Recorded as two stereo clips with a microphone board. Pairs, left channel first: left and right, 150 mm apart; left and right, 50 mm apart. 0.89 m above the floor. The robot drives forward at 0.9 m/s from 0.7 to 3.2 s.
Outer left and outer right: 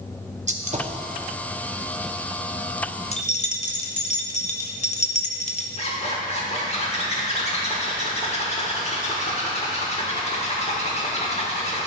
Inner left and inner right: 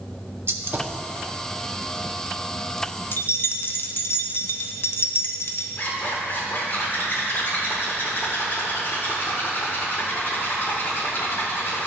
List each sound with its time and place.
0.5 s a gunshot: 50° right (ahead or behind), 0.7 m; by 1.0 s 35° right (ahead or behind), 0.9 m
3.1 s keys jangling: 45° left (ahead or behind), 0.6 m; by 5.7 s 50° left (ahead or behind), 0.6 m
5.8 s a zipper: 45° left (ahead or behind), 1.3 m